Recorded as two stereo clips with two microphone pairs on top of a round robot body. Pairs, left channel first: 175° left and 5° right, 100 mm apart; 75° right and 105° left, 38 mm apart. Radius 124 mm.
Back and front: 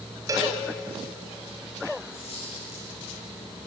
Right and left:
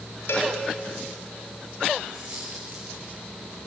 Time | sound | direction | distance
0.3 | a cowbell | 65° right | 5 m
2.1 | a dropped coin | 155° left | 6 m